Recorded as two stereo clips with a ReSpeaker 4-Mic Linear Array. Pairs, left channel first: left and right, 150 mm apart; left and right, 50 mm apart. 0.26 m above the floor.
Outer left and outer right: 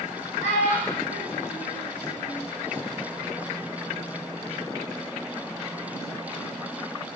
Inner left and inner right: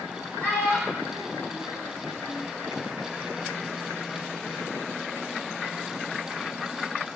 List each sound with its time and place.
0.4 s a child speaking: 50° left (ahead or behind), 1.7 m; by 2.5 s 55° left (ahead or behind), 1.9 m